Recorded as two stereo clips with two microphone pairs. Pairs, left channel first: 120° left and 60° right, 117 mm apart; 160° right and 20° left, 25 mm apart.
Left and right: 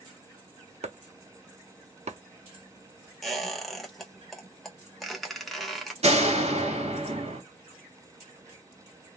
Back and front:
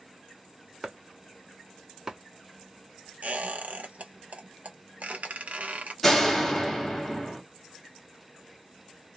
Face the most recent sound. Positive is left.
turn(degrees=-85)